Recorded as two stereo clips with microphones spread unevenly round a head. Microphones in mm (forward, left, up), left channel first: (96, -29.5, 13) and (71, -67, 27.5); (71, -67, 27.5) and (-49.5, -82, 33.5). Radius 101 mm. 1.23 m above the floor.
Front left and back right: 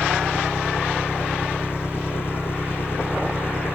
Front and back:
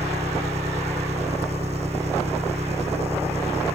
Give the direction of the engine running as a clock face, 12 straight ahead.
8 o'clock.